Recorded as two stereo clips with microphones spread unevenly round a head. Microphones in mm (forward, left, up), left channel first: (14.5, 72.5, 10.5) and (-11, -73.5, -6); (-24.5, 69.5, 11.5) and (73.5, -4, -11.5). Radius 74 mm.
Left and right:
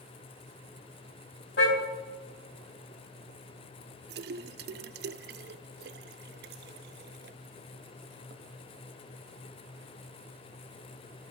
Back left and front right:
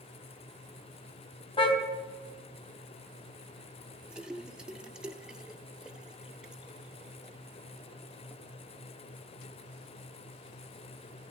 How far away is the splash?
About 0.6 m.